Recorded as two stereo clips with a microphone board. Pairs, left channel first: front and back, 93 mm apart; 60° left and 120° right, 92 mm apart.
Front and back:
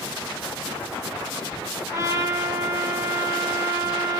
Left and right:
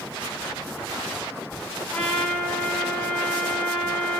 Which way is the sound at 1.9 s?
135° left.